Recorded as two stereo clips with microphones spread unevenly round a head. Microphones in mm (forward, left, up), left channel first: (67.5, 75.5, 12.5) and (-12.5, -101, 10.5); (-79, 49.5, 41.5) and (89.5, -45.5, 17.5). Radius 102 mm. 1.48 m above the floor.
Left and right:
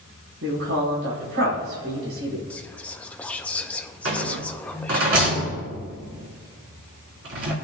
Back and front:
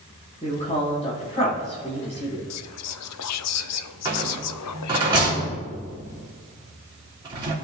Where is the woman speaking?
150° right, 5 m.